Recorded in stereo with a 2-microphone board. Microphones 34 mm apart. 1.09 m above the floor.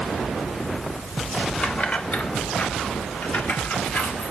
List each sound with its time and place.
1.6 s keys jangling: 40° left (ahead or behind), 1.2 m; by 4.3 s 80° left, 2.5 m